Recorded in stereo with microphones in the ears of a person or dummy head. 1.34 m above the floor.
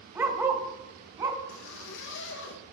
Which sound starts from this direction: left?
A zipper, at 1.5 s.